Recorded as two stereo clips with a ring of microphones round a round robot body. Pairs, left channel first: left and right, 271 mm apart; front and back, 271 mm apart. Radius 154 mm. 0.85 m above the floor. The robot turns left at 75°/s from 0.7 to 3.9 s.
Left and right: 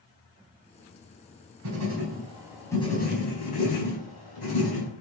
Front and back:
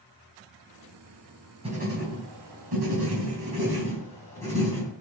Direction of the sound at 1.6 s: 110° right.